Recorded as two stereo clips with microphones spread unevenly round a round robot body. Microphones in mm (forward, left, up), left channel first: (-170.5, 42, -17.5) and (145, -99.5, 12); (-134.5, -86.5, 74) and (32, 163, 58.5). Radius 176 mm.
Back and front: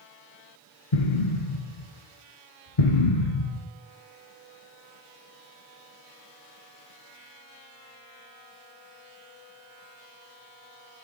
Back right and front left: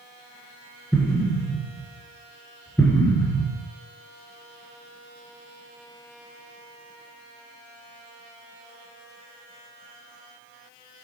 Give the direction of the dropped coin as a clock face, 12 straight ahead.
I don't hear a dropped coin.